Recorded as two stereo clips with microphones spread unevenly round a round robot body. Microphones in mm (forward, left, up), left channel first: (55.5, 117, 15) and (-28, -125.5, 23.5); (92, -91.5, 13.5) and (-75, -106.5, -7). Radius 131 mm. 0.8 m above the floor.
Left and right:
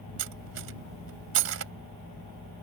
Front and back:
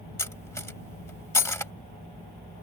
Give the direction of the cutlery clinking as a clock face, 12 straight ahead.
2 o'clock.